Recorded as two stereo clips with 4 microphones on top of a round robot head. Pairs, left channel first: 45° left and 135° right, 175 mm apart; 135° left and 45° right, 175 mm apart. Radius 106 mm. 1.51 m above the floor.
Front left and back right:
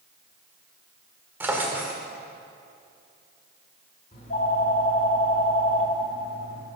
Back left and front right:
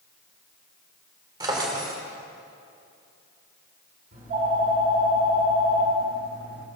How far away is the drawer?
About 1.2 m.